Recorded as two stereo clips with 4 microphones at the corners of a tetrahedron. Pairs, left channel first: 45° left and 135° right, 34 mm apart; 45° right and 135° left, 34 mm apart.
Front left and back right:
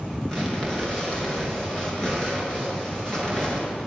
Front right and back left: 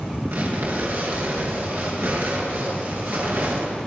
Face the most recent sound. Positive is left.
turn(degrees=115)